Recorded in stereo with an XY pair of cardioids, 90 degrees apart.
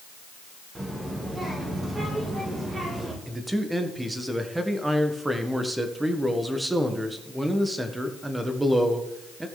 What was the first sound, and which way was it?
A child speaking, 20° right.